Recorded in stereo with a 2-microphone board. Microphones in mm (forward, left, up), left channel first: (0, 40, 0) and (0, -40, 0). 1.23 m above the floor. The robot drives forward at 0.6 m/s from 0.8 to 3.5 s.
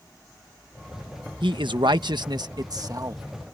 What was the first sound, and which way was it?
A man speaking, 80° right.